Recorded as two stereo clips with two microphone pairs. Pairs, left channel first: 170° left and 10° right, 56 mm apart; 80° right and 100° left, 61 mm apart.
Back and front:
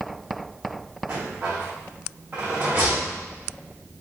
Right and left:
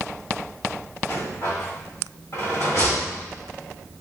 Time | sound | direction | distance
1.1 | a rattle | 55° right | 1.4 m